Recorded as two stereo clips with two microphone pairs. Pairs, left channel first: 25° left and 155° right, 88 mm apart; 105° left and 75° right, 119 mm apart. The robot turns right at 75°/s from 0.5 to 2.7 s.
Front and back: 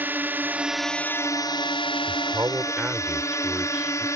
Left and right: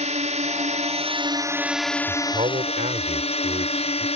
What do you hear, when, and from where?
0.0 s a drone: 85° right; by 4.2 s 80° left
2.1 s a man speaking: 125° right; by 4.1 s 80° right